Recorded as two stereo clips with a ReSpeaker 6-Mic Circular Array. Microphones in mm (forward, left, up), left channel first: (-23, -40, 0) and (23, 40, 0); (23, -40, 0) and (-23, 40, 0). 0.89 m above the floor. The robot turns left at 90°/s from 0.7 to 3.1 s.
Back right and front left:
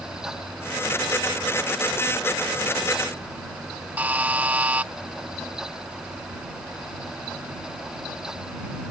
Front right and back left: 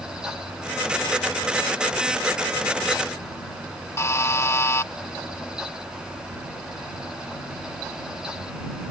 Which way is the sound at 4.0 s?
10° right.